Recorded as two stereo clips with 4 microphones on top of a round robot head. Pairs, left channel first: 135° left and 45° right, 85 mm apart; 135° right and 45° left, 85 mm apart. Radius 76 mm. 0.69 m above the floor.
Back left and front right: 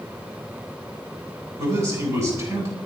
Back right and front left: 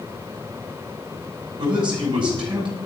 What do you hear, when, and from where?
1.6 s a man speaking: 10° left, 8.5 m